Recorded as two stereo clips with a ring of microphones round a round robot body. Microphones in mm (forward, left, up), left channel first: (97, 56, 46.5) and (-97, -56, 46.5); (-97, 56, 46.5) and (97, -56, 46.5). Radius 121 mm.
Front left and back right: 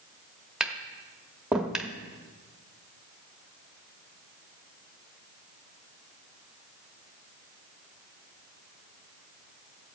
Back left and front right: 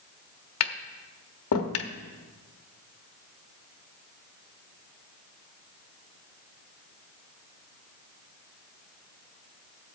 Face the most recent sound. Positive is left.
turn(degrees=125)